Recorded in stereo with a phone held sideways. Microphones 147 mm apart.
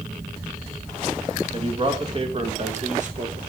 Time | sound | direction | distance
1.5 | a man speaking | 35° right (ahead or behind) | 2.5 m